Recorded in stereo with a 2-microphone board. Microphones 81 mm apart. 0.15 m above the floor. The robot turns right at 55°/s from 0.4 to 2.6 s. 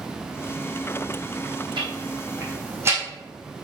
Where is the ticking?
75° right (ahead or behind), 3.5 m; by 3.0 s 30° right (ahead or behind), 3.5 m.